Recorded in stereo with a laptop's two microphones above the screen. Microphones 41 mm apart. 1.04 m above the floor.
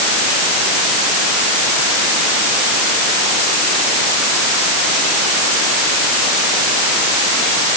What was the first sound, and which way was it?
Only background noise.